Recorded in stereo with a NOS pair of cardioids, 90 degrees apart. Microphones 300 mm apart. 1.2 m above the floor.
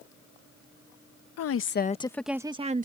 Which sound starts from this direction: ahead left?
A woman speaking, at 1.4 s.